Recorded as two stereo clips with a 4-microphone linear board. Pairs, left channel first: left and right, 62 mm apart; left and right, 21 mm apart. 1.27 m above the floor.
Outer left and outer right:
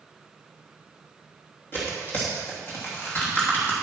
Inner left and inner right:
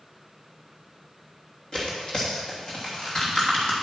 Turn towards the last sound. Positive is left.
turn(degrees=35)  # may be behind; listen again after turning